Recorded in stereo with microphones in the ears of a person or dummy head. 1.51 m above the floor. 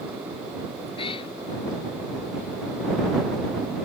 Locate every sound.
1.0 s a cat meowing: 25° left (ahead or behind)